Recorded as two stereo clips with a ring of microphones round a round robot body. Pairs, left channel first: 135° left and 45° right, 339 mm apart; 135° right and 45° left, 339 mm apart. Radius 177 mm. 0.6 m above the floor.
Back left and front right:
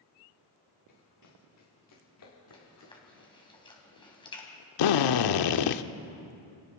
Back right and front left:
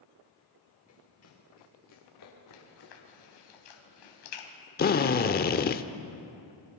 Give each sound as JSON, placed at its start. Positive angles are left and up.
{"t": 0.9, "sound": "running footsteps", "azimuth_deg": 175, "distance_m": 5.5}
{"t": 2.5, "sound": "chewing", "azimuth_deg": -150, "distance_m": 3.5}
{"t": 4.8, "sound": "a drill", "azimuth_deg": 160, "distance_m": 0.8}